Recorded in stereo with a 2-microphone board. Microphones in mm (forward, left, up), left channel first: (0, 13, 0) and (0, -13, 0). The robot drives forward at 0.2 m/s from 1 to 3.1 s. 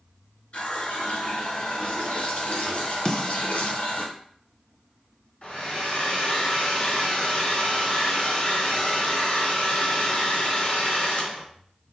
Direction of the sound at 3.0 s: 25° left (ahead or behind).